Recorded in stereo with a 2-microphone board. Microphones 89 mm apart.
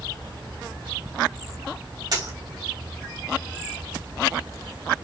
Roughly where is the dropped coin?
Right.